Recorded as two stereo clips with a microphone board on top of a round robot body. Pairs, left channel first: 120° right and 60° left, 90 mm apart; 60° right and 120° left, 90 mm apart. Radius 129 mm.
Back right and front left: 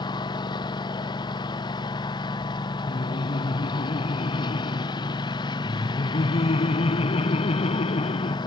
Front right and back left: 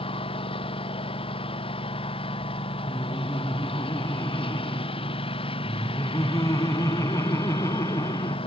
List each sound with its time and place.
0.0 s a lawn mower: 80° right
2.9 s laughter: 120° right